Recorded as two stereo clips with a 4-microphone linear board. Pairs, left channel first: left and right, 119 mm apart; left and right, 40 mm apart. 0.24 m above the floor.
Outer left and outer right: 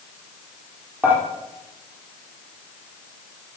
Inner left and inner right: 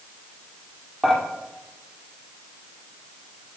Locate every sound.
1.0 s dishes clattering: 15° right (ahead or behind), 4 m